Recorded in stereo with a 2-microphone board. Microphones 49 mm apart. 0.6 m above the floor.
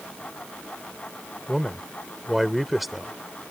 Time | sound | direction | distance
1.5 | a man speaking | 5° right (ahead or behind) | ?